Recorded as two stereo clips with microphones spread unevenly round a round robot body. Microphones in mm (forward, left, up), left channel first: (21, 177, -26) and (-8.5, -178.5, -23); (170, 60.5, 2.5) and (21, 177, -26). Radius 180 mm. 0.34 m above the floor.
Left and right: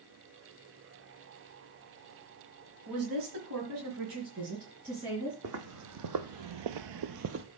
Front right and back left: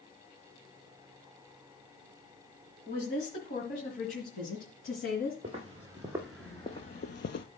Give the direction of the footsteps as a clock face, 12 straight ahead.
5 o'clock.